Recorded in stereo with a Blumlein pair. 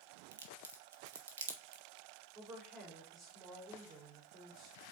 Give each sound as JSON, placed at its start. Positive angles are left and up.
{"t": 0.3, "sound": "a crack", "azimuth_deg": -65, "distance_m": 1.7}
{"t": 2.4, "sound": "a woman speaking", "azimuth_deg": -25, "distance_m": 4.5}